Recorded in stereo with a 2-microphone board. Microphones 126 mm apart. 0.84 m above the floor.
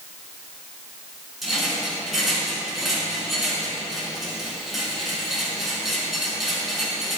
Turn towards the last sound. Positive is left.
turn(degrees=0)  # may be behind; listen again after turning